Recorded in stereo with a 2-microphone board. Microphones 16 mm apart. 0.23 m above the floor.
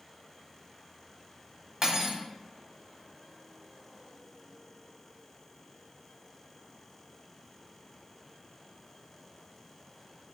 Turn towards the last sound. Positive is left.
turn(degrees=-30)  # may be behind; listen again after turning